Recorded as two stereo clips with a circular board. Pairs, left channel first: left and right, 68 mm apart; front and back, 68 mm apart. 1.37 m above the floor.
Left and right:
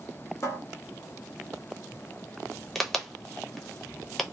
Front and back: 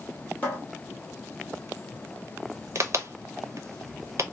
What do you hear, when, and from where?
0.4 s a cupboard door: 60° left, 1.1 m
2.8 s a crack: 175° left, 0.6 m